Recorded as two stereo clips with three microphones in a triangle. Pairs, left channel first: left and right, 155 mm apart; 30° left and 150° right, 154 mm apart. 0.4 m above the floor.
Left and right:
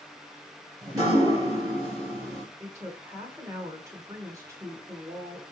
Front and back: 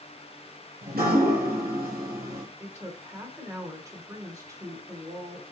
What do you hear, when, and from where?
0.8 s dripping: 155° right, 3 m
2.6 s a woman speaking: 120° right, 1.3 m